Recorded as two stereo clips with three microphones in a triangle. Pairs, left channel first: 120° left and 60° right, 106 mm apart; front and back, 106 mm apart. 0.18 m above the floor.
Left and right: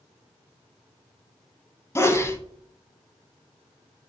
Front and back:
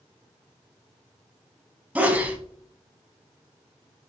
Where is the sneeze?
125° left, 1.1 m.